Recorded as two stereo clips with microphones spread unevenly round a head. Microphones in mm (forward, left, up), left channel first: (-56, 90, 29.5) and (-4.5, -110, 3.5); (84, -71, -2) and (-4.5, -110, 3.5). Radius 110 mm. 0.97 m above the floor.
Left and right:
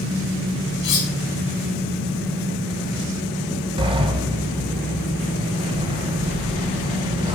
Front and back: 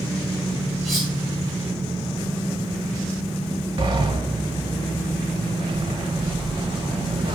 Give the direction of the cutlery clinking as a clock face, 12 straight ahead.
8 o'clock.